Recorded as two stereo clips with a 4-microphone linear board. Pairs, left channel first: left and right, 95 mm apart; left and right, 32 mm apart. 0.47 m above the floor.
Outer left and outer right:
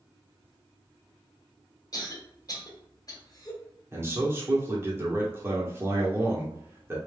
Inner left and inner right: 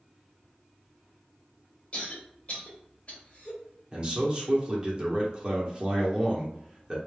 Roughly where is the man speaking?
Right.